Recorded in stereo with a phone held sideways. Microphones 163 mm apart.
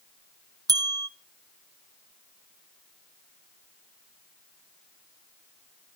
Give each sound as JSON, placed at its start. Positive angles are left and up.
{"t": 0.7, "sound": "a bell", "side_deg": -25, "distance_m": 0.6}